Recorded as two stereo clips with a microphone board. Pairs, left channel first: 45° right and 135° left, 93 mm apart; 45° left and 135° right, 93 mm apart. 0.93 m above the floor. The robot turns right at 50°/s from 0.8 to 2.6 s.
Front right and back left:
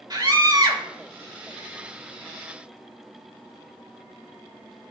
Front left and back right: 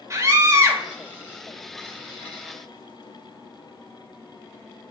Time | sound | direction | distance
0.1 | a scream | 170° left | 2.0 m